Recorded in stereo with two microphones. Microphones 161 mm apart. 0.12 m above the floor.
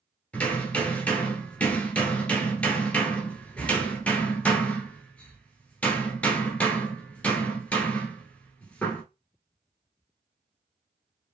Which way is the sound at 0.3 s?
10° left (ahead or behind).